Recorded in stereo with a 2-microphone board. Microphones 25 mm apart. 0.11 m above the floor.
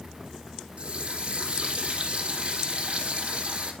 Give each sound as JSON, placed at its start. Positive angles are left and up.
{"t": 0.8, "sound": "a running tap", "side_deg": -55, "distance_m": 2.5}